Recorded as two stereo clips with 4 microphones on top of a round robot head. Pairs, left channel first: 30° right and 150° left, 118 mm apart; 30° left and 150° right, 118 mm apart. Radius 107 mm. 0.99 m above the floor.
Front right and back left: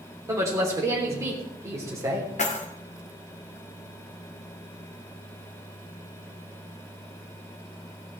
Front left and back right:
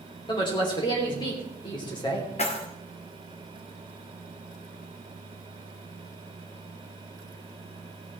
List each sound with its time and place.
0.3 s a woman speaking: 85° left, 3 m
2.4 s keys jangling: 5° right, 2 m